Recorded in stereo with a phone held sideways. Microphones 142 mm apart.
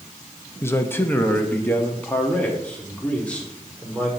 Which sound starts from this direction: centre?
A man speaking, at 0.6 s.